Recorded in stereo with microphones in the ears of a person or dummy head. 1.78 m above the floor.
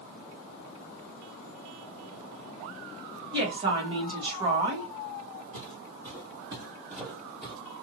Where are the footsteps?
25° right (ahead or behind), 2.5 m; by 7.5 s centre (ahead or behind), 2.5 m.